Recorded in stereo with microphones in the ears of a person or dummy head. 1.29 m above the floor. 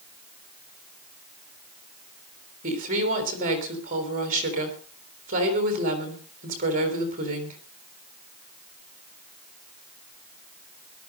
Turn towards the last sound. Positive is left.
turn(degrees=-40)  # may be behind; listen again after turning